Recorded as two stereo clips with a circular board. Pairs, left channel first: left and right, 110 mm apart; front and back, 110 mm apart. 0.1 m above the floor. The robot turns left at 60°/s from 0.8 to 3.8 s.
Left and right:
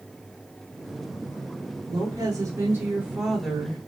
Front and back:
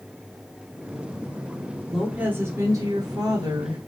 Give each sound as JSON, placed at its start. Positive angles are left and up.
{"t": 1.9, "sound": "a woman speaking", "azimuth_deg": -95, "distance_m": 1.4}